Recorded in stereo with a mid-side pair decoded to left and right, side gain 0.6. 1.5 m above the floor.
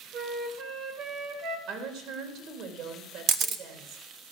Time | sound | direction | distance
0.1 | a flute | 55° right | 1.8 m
1.7 | a woman speaking | 65° right | 3 m
3.3 | a camera shutter | 55° right | 1.0 m